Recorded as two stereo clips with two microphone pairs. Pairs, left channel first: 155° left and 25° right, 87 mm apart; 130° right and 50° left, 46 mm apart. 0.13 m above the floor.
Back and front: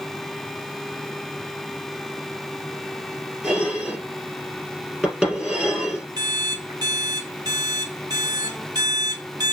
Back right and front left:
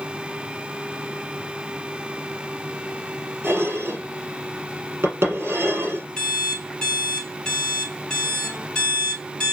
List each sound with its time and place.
3.4 s dishes clattering: 50° left, 2 m
6.2 s an alarm clock: 55° right, 1.2 m